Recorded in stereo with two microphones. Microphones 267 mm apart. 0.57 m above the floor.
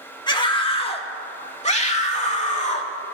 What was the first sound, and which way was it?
A scream, 15° left (ahead or behind).